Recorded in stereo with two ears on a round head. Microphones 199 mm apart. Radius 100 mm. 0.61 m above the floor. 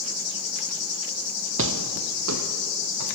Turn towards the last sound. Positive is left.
turn(degrees=-75)  # may be behind; listen again after turning